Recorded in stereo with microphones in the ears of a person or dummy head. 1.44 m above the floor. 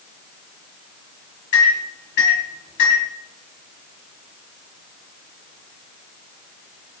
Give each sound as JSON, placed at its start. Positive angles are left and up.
{"t": 1.5, "sound": "a microwave", "side_deg": 55, "distance_m": 1.3}